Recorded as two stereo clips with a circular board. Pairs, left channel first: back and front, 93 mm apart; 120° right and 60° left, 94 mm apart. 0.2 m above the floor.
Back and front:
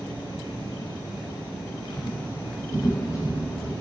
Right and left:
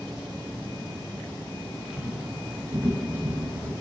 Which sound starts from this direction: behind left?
Footsteps, at 1.9 s.